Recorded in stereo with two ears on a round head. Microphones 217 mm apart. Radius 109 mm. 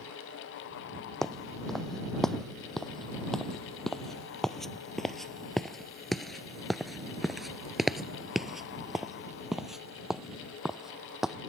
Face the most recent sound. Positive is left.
turn(degrees=0)  # may be behind; listen again after turning